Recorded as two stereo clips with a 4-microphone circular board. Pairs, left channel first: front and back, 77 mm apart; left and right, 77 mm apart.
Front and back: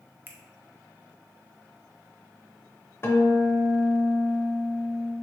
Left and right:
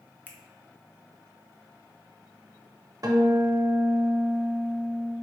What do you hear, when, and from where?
0.3 s a finger snap: 140° left, 0.6 m
3.0 s a guitar: 55° right, 0.6 m